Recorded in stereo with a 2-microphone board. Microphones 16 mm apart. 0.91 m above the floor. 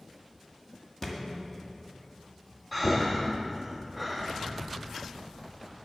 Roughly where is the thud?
Left.